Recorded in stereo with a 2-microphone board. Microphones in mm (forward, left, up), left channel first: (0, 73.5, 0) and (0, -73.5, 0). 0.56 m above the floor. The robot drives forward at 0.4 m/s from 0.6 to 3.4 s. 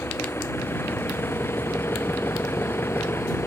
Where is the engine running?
15° left (ahead or behind).